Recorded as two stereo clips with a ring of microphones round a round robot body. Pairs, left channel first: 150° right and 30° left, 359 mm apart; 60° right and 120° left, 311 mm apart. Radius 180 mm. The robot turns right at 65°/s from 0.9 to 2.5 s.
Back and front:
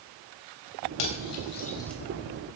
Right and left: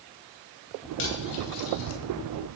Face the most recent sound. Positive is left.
turn(degrees=-25)